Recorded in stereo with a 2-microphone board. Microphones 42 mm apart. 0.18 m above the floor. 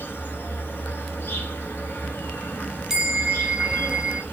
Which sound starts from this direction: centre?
A bell, at 2.9 s.